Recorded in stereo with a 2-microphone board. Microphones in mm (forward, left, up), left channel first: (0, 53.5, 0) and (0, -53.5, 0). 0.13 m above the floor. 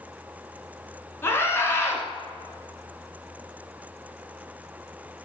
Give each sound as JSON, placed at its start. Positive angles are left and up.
{"t": 1.2, "sound": "a scream", "side_deg": 25, "distance_m": 1.3}